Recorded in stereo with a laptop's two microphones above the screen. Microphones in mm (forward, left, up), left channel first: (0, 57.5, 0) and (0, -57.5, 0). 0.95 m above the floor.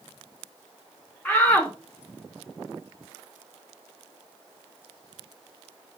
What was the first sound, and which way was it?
A shout, 10° left (ahead or behind).